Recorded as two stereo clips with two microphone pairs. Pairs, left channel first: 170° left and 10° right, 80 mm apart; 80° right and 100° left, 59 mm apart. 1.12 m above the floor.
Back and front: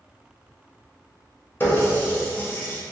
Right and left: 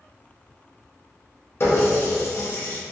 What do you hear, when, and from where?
1.6 s a running tap: 125° right, 0.8 m